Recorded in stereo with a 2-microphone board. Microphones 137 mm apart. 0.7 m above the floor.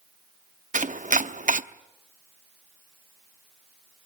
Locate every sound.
0.7 s chopping: 65° right (ahead or behind), 0.8 m